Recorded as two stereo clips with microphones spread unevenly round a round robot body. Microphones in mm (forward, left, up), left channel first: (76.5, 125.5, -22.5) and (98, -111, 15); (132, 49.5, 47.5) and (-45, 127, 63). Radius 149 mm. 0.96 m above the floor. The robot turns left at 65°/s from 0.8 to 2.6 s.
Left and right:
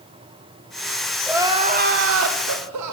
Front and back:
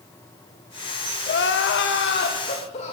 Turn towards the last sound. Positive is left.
turn(degrees=-80)